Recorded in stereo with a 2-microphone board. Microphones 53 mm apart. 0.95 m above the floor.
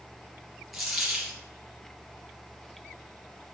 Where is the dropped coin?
Centre (ahead or behind), 2.5 m.